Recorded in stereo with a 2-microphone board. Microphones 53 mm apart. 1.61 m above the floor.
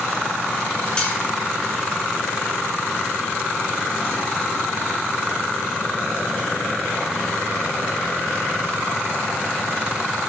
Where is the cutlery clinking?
20° left (ahead or behind), 3.5 m.